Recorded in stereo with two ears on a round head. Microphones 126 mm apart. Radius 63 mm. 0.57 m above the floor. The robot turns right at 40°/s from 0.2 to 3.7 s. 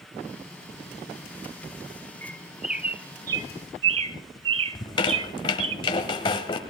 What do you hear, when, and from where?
2.2 s a bird: 10° left (ahead or behind), 0.7 m; by 5.8 s 40° right (ahead or behind), 0.7 m
4.8 s a squeak: 35° left (ahead or behind), 1.1 m